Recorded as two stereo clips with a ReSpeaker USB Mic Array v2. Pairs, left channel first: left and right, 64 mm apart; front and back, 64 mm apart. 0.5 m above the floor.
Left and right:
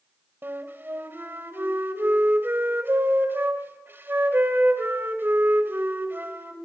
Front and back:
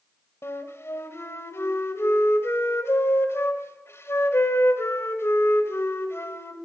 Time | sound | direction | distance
0.4 | a flute | 40° right | 1.9 m